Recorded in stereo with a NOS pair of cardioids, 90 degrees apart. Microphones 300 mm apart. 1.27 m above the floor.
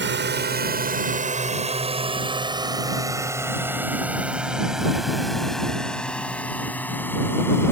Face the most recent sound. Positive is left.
turn(degrees=10)